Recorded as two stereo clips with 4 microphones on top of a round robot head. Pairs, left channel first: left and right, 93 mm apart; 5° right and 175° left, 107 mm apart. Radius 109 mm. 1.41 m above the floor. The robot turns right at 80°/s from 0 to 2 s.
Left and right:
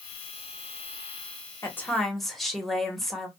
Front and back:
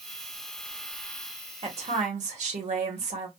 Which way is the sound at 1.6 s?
145° left.